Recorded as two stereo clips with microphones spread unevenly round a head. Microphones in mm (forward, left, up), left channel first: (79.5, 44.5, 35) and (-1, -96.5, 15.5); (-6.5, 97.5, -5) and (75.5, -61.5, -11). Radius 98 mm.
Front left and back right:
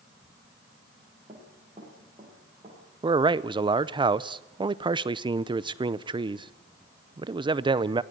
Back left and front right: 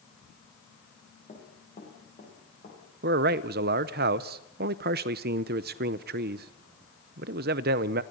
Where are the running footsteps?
175° left, 7 m.